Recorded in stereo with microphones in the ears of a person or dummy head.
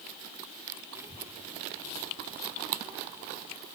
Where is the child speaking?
10° right (ahead or behind), 0.7 m.